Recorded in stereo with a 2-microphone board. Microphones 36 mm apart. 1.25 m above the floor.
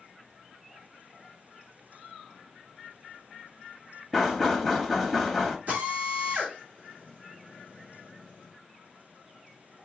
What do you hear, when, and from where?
4.1 s knocking: 5° right (ahead or behind), 1.1 m
5.7 s a drill: 55° right (ahead or behind), 2.5 m